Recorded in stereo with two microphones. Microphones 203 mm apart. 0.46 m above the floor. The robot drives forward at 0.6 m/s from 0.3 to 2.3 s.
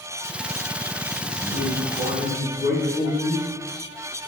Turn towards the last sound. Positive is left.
turn(degrees=65)  # may be behind; listen again after turning